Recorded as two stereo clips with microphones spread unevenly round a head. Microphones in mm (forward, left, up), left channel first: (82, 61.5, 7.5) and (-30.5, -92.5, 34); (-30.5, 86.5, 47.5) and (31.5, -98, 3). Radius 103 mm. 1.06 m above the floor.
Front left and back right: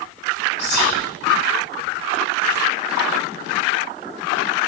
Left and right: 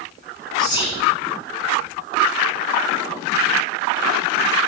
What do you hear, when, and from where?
0.6 s whispering: 35° left, 1.9 m